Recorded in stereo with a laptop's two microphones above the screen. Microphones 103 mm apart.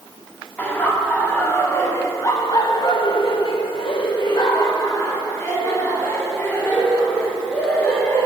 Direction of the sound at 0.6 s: 15° left (ahead or behind).